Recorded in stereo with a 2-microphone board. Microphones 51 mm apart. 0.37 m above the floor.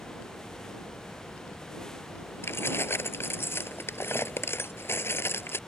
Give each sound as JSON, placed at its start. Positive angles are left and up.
{"t": 2.4, "sound": "keys jangling", "side_deg": 50}